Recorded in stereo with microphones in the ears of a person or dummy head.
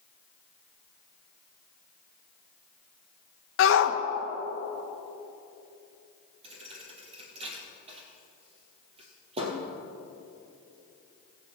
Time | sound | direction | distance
3.6 | a shout | 65° left (ahead or behind) | 1.2 m
6.4 | a thud | 30° right (ahead or behind) | 2.5 m